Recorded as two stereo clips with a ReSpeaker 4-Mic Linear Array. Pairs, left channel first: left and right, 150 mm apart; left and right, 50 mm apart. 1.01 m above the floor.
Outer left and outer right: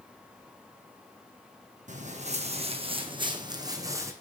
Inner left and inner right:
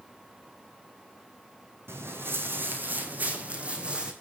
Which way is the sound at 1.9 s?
60° right (ahead or behind).